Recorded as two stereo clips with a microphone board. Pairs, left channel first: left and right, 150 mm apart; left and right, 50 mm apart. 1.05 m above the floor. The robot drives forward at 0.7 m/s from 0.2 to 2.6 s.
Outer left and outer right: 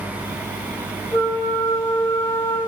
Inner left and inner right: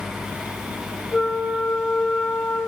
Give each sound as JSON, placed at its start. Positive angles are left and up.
{"t": 1.1, "sound": "a flute", "side_deg": 30, "distance_m": 4.0}